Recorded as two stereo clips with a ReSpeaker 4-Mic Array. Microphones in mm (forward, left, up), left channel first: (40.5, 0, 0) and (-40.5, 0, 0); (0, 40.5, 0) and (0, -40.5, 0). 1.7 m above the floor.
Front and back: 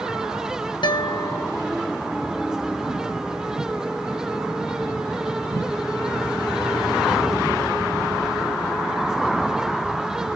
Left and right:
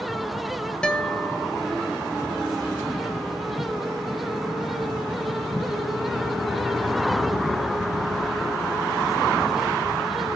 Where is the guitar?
10° left, 0.8 m.